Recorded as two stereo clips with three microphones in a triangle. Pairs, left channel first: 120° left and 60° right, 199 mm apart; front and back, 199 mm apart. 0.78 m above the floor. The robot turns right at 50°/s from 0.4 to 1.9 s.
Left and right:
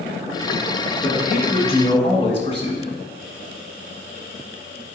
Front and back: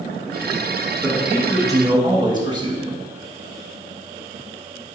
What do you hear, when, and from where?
1.0 s a man speaking: 95° left, 1.1 m; by 3.0 s 140° left, 1.1 m